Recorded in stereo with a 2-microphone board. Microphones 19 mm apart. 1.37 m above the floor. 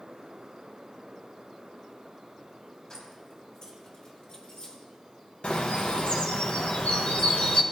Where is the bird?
70° left (ahead or behind), 1.2 m.